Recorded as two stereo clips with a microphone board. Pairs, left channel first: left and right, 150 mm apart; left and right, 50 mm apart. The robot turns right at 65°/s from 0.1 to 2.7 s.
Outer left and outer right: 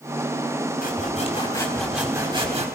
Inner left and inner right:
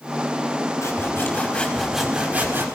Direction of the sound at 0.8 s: 110° left.